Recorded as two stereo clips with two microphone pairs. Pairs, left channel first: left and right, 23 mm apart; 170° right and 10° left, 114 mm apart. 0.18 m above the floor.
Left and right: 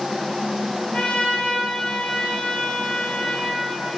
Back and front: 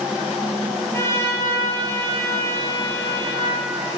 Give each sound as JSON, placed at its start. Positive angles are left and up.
{"t": 0.9, "sound": "a trumpet", "azimuth_deg": 125, "distance_m": 1.2}